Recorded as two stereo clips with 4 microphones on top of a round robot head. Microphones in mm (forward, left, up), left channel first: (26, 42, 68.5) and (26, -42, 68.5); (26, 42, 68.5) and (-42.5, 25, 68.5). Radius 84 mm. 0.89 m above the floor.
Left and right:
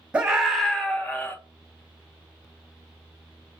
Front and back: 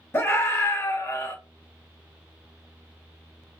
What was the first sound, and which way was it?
A scream, 20° right.